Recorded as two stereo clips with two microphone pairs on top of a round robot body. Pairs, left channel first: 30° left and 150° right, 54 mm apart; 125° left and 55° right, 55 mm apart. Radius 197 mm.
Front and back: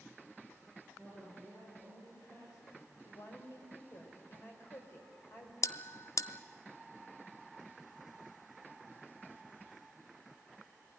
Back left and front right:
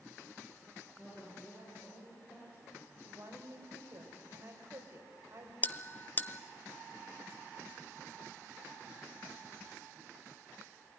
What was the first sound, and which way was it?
A woman speaking, 60° left.